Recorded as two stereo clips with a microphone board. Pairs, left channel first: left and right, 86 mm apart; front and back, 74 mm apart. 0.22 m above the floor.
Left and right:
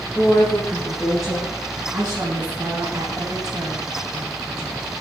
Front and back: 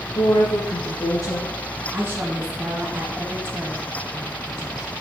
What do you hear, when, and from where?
0.1 s a woman speaking: 5° left, 4.5 m
1.9 s a woman speaking: 120° right, 2 m